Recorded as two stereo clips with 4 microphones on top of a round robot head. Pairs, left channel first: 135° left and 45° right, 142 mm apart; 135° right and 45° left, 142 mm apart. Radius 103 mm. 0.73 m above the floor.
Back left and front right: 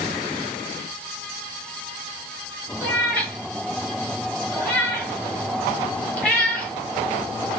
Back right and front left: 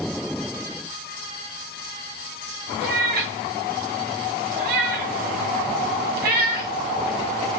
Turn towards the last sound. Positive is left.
turn(degrees=55)